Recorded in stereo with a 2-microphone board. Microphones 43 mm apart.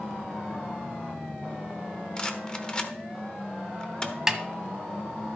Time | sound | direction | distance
2.2 | a rattle | 20° left (ahead or behind) | 0.9 m
4.3 | a snare drum | 15° right (ahead or behind) | 0.9 m